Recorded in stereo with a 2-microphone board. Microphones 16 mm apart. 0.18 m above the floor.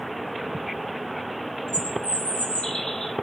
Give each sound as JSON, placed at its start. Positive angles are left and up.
{"t": 1.7, "sound": "a bird", "side_deg": 80, "distance_m": 6.5}